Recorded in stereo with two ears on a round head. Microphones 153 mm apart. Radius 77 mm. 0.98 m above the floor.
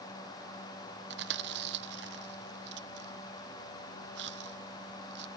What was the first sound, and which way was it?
Chewing, 75° right (ahead or behind).